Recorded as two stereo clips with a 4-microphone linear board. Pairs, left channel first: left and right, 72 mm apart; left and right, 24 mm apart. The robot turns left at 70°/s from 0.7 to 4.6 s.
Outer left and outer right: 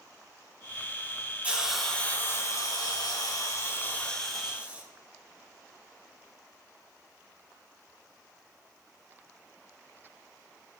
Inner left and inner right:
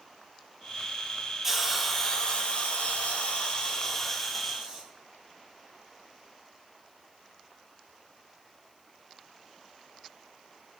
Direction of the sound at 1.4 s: 155° right.